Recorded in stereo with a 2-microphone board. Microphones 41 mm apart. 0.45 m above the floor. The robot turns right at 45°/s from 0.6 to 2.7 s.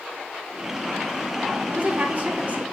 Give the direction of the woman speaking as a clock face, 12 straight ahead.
3 o'clock.